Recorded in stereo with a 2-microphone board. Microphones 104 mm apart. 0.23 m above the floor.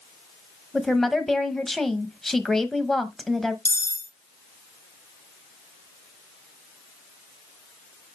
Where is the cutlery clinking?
25° left (ahead or behind), 0.6 m.